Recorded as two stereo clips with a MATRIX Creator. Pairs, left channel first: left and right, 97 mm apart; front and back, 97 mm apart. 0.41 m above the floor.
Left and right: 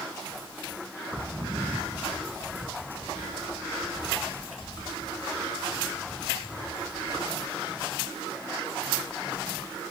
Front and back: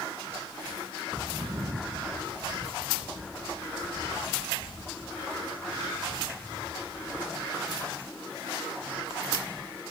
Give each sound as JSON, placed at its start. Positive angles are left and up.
{"t": 1.1, "sound": "footsteps", "azimuth_deg": -120, "distance_m": 0.9}